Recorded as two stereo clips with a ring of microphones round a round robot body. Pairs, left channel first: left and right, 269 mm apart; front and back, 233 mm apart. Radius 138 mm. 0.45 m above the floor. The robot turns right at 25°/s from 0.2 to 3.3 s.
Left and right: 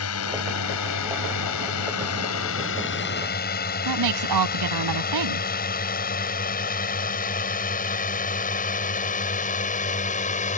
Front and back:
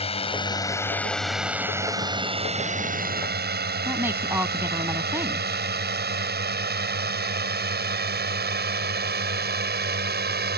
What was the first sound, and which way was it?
A drone, 60° left.